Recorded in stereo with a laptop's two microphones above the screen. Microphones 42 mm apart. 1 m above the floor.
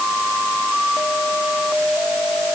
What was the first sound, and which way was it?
Only background noise.